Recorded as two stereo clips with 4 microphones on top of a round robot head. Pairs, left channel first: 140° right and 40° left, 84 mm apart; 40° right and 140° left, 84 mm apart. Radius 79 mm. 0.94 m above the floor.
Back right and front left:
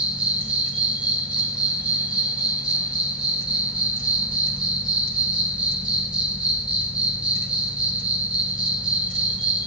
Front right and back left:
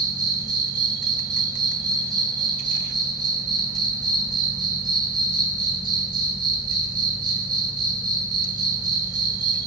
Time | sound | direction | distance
0.0 | an insect | 115° left | 0.8 m